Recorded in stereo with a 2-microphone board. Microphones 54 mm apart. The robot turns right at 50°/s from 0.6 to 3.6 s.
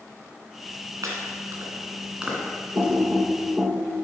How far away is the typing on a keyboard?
About 4 m.